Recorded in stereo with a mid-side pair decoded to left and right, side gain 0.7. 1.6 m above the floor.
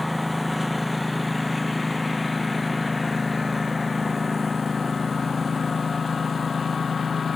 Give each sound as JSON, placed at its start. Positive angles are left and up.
{"t": 0.0, "sound": "a lawn mower", "azimuth_deg": 5}